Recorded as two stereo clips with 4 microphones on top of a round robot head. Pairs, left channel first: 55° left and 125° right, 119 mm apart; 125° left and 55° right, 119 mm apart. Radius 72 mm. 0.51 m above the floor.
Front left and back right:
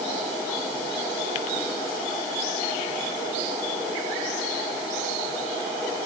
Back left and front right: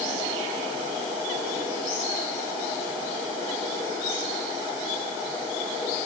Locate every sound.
Only background noise.